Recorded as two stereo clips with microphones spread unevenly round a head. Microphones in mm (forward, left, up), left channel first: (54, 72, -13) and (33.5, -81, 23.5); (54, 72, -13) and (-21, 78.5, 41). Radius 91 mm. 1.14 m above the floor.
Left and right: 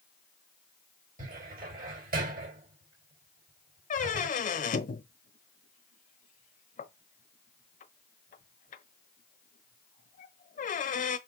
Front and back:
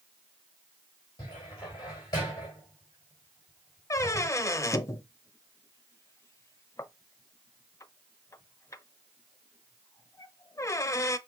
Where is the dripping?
No dripping in this recording.